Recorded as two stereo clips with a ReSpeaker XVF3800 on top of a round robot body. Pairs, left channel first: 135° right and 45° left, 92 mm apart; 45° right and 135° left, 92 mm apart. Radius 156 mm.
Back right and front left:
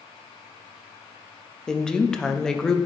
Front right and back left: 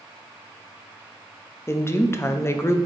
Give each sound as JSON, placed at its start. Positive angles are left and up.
{"t": 1.7, "sound": "a woman speaking", "azimuth_deg": -60, "distance_m": 0.8}